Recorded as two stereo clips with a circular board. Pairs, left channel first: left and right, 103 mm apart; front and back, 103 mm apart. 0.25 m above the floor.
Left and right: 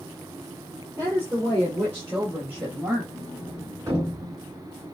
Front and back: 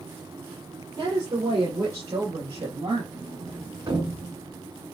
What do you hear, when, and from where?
1.0 s a woman speaking: 155° right, 5.5 m; by 3.0 s 165° right, 5 m
3.1 s a sliding door: 145° right, 3.5 m